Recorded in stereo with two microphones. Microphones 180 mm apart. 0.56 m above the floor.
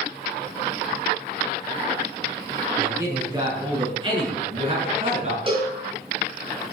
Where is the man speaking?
15° right (ahead or behind), 6 m; by 5.4 s 40° right (ahead or behind), 7.5 m.